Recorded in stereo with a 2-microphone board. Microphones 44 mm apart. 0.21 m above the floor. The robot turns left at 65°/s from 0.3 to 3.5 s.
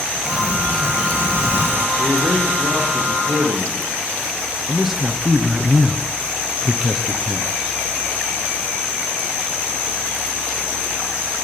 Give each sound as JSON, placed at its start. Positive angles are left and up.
{"t": 0.2, "sound": "a sliding door", "azimuth_deg": -25, "distance_m": 0.5}
{"t": 2.0, "sound": "a man speaking", "azimuth_deg": -25, "distance_m": 9.5}
{"t": 4.7, "sound": "a man speaking", "side_deg": -10, "distance_m": 1.8}